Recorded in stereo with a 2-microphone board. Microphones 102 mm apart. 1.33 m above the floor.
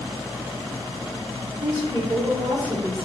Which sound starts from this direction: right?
A woman speaking, at 1.6 s.